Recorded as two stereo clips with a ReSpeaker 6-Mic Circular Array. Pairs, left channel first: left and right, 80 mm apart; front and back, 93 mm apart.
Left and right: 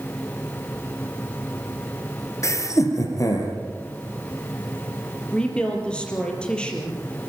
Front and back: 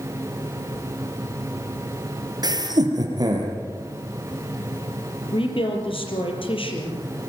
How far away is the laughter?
About 3.5 m.